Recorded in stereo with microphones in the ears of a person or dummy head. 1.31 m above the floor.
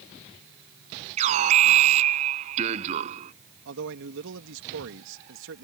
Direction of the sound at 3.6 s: 75° right (ahead or behind).